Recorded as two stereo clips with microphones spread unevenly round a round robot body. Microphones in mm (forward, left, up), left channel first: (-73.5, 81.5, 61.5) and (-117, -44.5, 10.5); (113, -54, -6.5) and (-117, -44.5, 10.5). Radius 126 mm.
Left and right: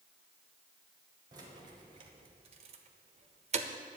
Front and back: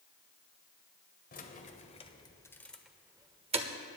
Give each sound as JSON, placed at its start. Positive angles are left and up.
{"t": 1.3, "sound": "keys jangling", "azimuth_deg": -50, "distance_m": 1.5}